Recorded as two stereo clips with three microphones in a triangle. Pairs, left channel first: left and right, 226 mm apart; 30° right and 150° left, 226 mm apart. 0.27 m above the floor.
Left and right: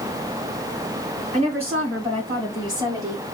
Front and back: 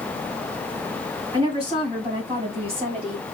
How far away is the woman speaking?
About 2.5 m.